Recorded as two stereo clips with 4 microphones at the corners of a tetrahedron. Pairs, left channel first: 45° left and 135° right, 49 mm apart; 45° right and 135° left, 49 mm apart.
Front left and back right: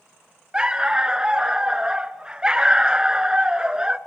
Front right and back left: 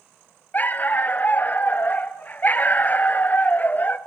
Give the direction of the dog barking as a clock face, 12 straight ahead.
2 o'clock.